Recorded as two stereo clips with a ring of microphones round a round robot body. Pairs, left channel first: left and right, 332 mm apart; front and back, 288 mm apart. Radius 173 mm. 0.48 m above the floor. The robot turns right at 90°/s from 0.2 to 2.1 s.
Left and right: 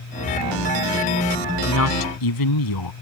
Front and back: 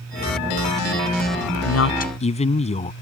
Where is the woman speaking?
25° left; by 2.9 s 70° left.